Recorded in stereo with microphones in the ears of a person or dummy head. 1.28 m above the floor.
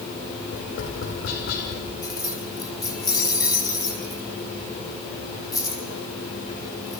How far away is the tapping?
About 5.5 m.